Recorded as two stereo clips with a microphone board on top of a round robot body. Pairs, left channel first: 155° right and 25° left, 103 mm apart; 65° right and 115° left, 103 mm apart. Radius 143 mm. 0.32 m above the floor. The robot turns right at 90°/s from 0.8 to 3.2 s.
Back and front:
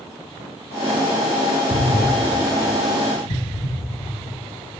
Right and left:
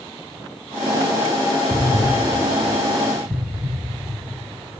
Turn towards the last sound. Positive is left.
turn(degrees=175)